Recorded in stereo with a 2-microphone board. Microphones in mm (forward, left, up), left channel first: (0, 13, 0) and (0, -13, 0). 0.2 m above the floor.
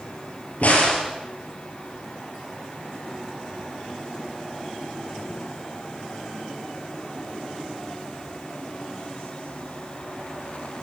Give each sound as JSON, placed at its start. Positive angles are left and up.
{"t": 0.6, "sound": "a crack", "side_deg": 60, "distance_m": 5.0}